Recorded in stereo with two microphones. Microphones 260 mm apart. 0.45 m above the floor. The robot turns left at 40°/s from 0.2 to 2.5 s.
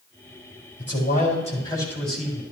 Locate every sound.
0.8 s a man speaking: 55° left, 3.5 m; by 2.4 s 10° right, 3.5 m